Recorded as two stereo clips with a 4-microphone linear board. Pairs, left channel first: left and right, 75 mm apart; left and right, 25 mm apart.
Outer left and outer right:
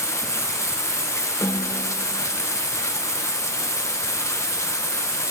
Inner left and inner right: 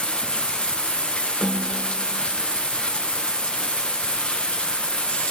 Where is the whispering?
I don't hear whispering.